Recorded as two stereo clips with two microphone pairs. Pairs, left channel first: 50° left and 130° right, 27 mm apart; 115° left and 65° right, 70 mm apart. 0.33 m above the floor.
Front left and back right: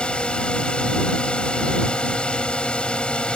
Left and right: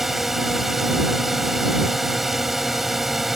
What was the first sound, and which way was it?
A drone, 20° left.